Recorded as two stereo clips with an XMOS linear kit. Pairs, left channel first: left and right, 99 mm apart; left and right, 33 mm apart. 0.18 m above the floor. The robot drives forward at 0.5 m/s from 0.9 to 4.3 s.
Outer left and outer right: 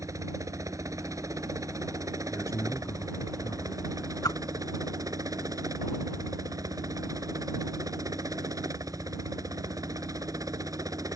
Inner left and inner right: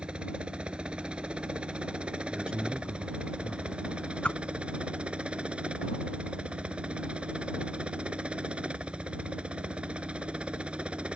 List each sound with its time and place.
0.0 s a helicopter: 35° right (ahead or behind)
2.3 s a man speaking: 25° left (ahead or behind); by 3.7 s 35° left (ahead or behind)
4.2 s a whoosh: 40° left (ahead or behind)